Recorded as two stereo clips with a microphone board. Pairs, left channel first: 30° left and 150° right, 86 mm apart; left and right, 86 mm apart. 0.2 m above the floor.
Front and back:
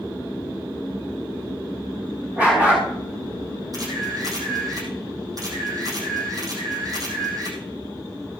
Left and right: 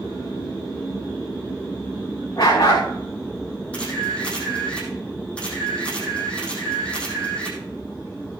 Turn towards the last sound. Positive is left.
turn(degrees=165)